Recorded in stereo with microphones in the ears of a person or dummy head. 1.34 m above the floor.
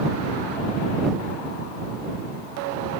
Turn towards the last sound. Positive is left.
No sound to turn to.